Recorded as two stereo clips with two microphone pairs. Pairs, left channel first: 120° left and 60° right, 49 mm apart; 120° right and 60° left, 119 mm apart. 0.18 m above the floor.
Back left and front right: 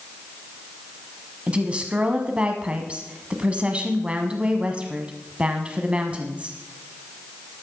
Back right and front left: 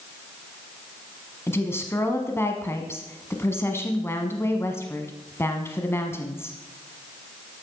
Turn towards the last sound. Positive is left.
turn(degrees=-95)